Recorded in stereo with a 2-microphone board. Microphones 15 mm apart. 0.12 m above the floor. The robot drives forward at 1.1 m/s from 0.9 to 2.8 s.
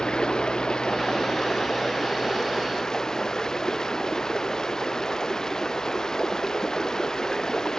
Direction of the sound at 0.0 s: 70° left (ahead or behind).